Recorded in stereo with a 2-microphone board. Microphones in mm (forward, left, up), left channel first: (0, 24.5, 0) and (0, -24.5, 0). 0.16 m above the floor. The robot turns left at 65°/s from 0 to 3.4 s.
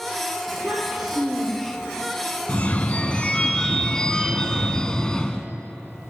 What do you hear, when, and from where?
0.5 s a child speaking: 135° right, 3 m; by 1.9 s 130° left, 3 m
2.5 s a phone ringing: 90° left, 0.7 m; by 5.5 s 30° left, 0.7 m